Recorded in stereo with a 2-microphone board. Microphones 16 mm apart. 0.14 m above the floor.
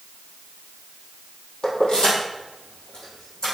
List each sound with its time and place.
1.6 s keys jangling: 65° left (ahead or behind), 2.5 m; by 3.5 s 55° left (ahead or behind), 4.5 m